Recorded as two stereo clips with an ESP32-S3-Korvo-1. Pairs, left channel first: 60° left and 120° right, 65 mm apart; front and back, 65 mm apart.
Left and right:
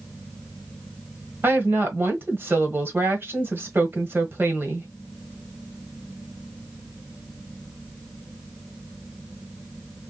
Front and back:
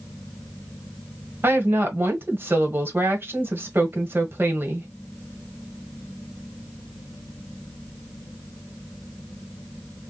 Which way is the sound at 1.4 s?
150° right.